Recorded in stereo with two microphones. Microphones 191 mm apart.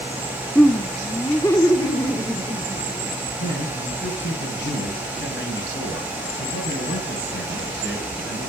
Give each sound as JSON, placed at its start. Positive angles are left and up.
{"t": 0.6, "sound": "laughter", "side_deg": 5, "distance_m": 0.7}
{"t": 3.4, "sound": "a man speaking", "side_deg": 75, "distance_m": 8.5}